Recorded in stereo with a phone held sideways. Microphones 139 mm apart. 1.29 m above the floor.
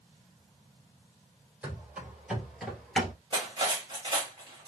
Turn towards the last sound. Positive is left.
turn(degrees=-35)  # may be behind; listen again after turning